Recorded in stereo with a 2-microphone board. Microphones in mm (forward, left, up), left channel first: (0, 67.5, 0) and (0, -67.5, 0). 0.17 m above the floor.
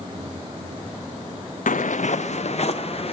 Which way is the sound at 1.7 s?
75° left (ahead or behind).